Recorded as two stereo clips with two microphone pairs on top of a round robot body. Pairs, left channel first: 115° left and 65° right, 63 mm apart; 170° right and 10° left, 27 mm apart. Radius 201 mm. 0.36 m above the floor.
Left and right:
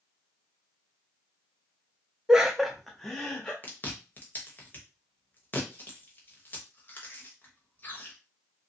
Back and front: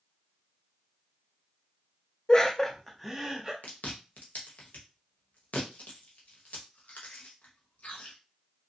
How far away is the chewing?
About 0.9 m.